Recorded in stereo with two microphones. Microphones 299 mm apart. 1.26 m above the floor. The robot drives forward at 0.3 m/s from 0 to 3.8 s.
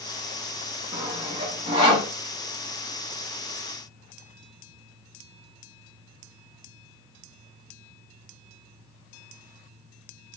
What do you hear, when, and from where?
0.9 s sawing: 15° right (ahead or behind), 1.3 m; by 2.1 s 20° right (ahead or behind), 1.2 m